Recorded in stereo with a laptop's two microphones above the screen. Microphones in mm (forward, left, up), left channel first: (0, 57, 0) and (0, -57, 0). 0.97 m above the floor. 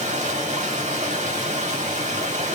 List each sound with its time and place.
0.0 s running water: 75° right (ahead or behind), 1.5 m